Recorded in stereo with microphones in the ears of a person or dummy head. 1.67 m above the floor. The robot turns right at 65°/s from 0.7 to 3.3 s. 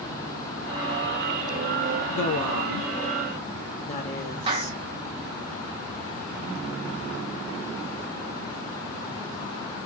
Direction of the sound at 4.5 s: 40° right (ahead or behind).